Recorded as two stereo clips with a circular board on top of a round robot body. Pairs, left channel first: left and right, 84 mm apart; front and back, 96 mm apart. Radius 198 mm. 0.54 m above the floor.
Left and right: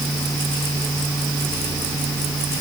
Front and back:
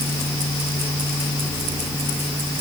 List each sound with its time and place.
Only background noise.